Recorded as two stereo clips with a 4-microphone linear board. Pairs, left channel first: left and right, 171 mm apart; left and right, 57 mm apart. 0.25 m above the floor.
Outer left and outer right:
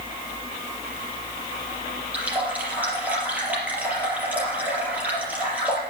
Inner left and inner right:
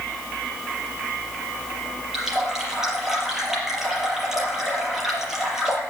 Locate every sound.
2.1 s a running tap: 10° right (ahead or behind), 4.5 m